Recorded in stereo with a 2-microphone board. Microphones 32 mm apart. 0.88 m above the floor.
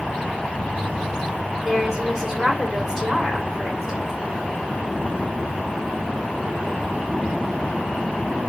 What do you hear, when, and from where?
1.6 s a woman speaking: 5° right (ahead or behind), 3 m